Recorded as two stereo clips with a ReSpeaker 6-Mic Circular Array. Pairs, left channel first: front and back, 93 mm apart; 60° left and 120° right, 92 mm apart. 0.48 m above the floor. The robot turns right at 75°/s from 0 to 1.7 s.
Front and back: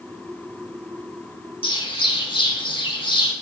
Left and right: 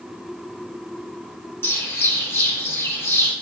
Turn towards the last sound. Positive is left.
turn(degrees=0)